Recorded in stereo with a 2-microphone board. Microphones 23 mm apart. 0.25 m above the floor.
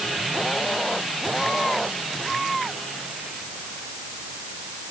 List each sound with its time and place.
Only background noise.